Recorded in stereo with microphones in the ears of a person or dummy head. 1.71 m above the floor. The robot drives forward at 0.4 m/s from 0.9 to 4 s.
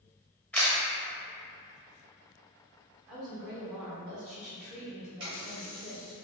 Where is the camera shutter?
10° left (ahead or behind), 0.7 m.